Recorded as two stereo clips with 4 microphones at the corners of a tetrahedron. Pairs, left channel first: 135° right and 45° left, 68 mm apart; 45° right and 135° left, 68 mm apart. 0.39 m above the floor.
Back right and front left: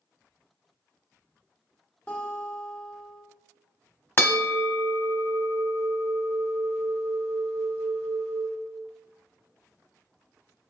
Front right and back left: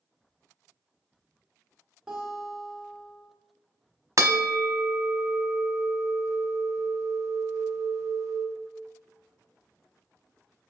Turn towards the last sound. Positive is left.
turn(degrees=170)